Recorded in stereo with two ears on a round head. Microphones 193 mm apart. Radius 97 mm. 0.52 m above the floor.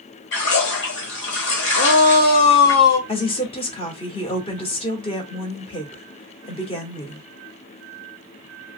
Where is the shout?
50° left (ahead or behind), 1.0 m.